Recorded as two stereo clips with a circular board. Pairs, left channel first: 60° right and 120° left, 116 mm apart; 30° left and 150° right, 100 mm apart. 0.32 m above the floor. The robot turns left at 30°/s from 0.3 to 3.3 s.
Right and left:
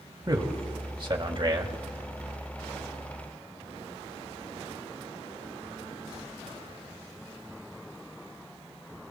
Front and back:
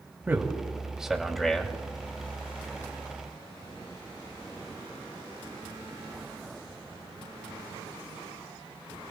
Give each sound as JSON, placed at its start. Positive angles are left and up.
{"t": 0.3, "sound": "a man speaking", "azimuth_deg": 150, "distance_m": 1.8}